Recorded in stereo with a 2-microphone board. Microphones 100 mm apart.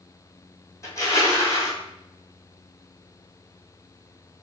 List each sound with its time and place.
0.8 s crushing: 30° left (ahead or behind), 1.5 m